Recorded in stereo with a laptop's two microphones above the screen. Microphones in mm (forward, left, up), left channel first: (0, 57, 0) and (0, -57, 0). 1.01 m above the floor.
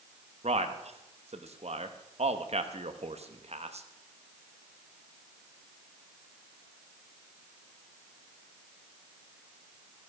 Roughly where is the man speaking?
Right.